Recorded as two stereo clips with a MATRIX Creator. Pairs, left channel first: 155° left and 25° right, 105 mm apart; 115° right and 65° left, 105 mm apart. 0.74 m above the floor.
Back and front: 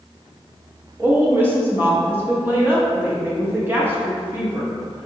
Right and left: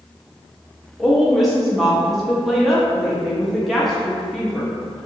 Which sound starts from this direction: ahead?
A woman speaking, at 1.0 s.